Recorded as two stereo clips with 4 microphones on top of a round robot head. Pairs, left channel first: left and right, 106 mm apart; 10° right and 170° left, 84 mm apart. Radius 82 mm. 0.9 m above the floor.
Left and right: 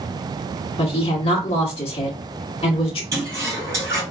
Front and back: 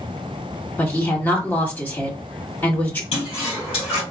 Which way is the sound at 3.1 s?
25° right.